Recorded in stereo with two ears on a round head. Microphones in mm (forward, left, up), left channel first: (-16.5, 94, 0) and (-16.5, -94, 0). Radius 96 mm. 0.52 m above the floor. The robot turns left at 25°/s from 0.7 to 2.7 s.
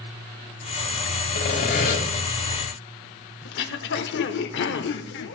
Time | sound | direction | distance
1.4 | sawing | 55° left (ahead or behind) | 2.5 m
3.5 | throat clearing | 60° left (ahead or behind) | 0.7 m